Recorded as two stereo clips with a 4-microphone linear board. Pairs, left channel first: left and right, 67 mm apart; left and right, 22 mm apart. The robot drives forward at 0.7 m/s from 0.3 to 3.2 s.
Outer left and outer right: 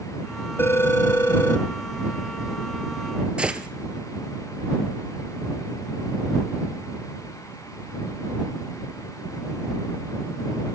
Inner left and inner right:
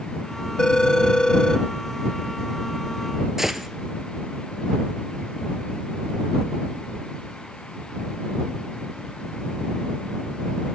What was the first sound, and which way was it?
A phone ringing, 35° left (ahead or behind).